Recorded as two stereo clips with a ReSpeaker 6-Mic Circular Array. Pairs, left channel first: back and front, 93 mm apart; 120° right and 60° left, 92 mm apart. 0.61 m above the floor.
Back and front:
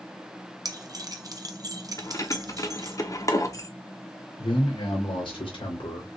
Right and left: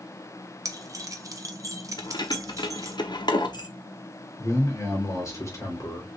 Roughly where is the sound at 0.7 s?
Ahead left.